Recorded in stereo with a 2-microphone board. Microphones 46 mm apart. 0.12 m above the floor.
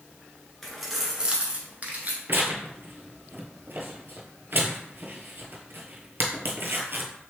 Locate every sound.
0.6 s keys jangling: 5° left (ahead or behind), 1.1 m; by 2.2 s 40° right (ahead or behind), 1.3 m
2.3 s tearing paper: 55° right (ahead or behind), 0.8 m